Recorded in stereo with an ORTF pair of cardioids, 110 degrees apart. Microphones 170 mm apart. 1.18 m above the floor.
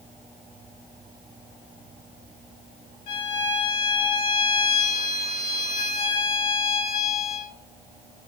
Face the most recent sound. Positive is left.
turn(degrees=55)